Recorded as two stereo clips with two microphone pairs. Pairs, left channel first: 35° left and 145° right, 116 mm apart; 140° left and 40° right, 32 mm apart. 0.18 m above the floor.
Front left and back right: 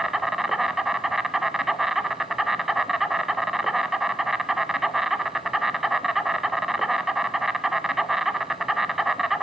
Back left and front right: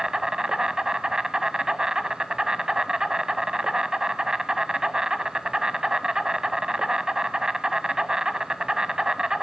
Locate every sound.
0.0 s an insect: 60° right, 1.2 m